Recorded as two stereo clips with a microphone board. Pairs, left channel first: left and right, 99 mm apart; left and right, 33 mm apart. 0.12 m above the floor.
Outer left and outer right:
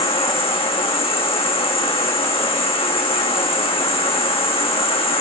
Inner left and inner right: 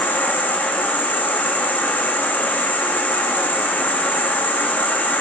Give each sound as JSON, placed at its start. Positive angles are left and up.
{"t": 0.0, "sound": "an insect", "side_deg": 70, "distance_m": 1.5}